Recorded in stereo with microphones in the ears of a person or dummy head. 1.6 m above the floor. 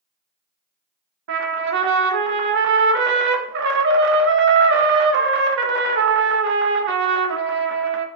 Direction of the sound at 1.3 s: 60° right (ahead or behind).